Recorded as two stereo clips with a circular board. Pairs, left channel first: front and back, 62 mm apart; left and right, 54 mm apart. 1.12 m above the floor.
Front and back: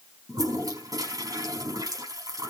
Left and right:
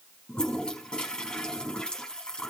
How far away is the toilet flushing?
About 4.5 m.